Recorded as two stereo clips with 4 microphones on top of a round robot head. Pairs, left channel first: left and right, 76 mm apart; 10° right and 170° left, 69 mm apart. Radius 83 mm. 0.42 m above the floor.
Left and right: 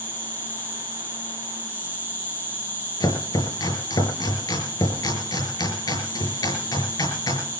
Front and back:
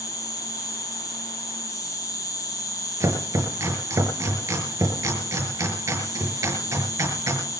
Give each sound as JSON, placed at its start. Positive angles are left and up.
{"t": 0.0, "sound": "an insect", "azimuth_deg": 25, "distance_m": 5.0}
{"t": 3.0, "sound": "chopping", "azimuth_deg": 120, "distance_m": 5.5}